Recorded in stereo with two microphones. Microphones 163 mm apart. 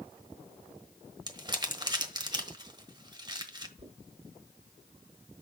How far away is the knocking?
About 3 m.